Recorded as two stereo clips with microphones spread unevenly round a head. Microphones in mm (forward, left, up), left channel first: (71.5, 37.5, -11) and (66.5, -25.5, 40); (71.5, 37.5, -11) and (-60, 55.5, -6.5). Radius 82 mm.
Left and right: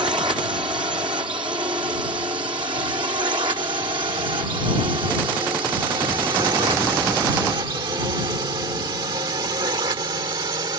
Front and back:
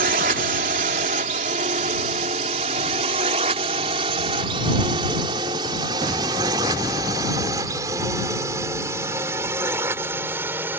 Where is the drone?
145° right; by 10.8 s 110° right.